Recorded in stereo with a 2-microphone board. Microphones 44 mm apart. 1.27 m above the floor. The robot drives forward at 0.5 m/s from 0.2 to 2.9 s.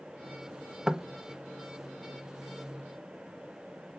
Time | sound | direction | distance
0.9 | knocking | 10° right (ahead or behind) | 0.8 m